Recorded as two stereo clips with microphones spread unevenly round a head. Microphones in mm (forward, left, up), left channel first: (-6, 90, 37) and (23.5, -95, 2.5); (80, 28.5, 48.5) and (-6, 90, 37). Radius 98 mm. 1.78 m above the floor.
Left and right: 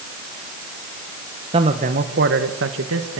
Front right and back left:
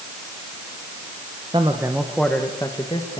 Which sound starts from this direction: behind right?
A man speaking, at 1.5 s.